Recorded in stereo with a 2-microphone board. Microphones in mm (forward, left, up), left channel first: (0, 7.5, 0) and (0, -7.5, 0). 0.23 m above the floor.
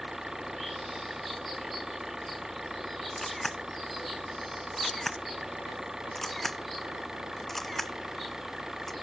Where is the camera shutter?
15° left (ahead or behind).